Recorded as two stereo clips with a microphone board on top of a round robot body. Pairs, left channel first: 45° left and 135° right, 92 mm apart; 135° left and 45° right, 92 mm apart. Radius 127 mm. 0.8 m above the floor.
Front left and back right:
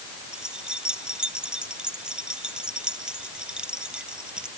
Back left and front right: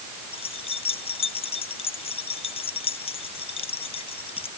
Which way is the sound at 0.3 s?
145° left.